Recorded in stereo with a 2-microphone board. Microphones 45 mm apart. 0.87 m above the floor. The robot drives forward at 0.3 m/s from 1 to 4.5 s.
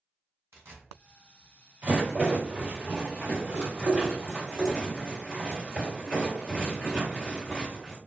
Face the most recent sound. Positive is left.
turn(degrees=-25)  # may be behind; listen again after turning